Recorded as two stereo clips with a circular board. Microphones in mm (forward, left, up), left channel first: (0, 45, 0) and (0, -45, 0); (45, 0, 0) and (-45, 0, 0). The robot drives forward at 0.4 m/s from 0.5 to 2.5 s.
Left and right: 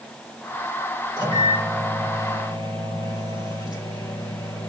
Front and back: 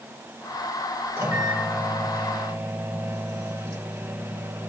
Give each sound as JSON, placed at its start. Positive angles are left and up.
{"t": 1.2, "sound": "a microwave", "azimuth_deg": 120, "distance_m": 5.5}